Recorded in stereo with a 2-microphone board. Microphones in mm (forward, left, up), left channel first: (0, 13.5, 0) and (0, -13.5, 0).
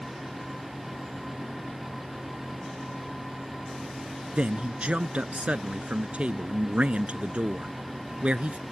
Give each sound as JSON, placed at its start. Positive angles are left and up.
{"t": 4.3, "sound": "a man speaking", "side_deg": -60}